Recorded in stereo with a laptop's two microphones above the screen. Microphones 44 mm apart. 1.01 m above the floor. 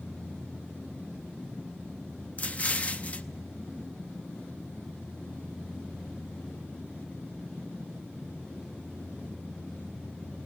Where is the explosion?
30° left (ahead or behind), 0.5 m.